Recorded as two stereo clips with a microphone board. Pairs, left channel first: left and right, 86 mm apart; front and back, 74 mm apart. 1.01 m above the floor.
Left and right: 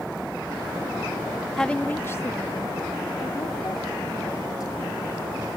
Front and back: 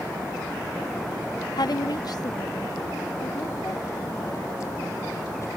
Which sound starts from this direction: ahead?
A woman speaking, at 1.6 s.